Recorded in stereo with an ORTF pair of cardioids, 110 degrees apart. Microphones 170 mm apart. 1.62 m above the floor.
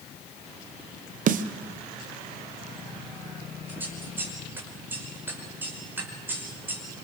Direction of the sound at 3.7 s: 10° right.